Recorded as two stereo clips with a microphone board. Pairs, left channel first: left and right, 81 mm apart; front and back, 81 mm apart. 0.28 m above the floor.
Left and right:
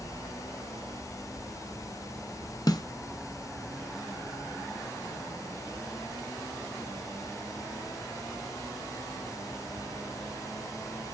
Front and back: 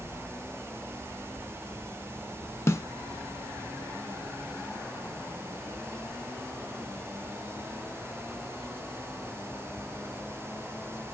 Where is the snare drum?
55° left, 0.9 m.